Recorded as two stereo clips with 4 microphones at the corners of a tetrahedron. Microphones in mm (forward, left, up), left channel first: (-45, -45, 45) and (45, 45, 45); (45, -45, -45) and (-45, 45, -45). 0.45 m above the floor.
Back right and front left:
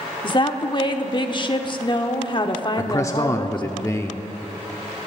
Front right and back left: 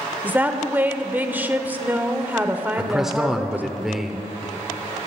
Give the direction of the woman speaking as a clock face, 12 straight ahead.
5 o'clock.